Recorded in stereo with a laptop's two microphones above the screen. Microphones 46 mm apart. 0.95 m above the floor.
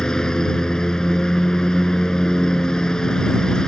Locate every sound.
0.0 s a lawn mower: 15° left (ahead or behind)